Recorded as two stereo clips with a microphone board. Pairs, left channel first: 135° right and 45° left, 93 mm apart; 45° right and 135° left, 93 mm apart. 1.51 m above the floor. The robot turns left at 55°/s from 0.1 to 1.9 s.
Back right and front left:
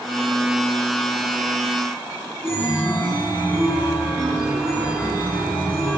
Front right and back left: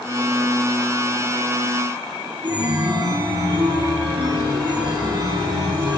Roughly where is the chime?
Behind.